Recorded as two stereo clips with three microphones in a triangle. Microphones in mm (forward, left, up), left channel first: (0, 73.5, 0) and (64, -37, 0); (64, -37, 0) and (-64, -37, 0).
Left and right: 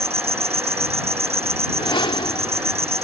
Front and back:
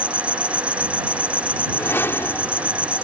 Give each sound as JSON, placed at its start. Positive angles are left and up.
{"t": 0.0, "sound": "an insect", "azimuth_deg": -100}
{"t": 1.7, "sound": "a whoosh", "azimuth_deg": 70}